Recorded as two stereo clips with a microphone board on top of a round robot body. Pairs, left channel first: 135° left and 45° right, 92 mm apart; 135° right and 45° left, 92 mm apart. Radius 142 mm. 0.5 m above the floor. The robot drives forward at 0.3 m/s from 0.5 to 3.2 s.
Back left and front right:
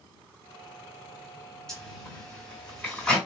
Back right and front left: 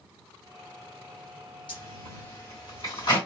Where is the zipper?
145° right, 2.5 m; by 3.2 s 150° right, 2.5 m.